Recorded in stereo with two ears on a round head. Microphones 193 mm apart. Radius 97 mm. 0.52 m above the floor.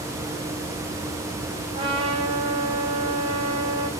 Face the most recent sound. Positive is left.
turn(degrees=-25)  # may be behind; listen again after turning